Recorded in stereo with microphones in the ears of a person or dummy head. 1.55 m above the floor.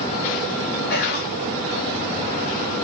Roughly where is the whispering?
Left.